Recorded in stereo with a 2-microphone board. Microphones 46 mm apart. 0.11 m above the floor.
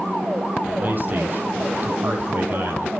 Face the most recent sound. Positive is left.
turn(degrees=-45)  # may be behind; listen again after turning